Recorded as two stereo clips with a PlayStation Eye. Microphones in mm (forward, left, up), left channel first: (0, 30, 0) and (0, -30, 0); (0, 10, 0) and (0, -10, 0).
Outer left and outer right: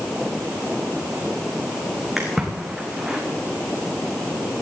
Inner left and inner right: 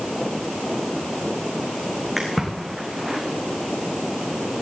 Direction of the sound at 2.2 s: 5° right (ahead or behind).